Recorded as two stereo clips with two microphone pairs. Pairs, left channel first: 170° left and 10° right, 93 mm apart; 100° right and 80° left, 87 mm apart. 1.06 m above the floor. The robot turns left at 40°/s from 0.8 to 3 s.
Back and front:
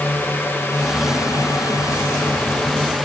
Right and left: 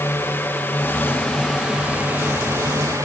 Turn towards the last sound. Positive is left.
turn(degrees=85)